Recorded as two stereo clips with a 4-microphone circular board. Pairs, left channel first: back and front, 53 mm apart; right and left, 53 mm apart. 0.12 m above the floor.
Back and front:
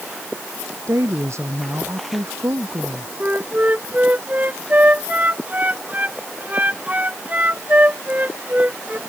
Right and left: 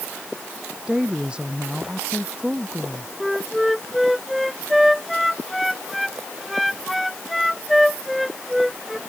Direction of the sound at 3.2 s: 5° left.